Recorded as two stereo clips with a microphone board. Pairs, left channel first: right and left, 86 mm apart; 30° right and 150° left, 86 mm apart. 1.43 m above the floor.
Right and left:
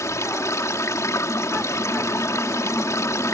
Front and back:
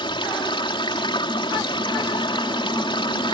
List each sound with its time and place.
0.0 s running water: 35° right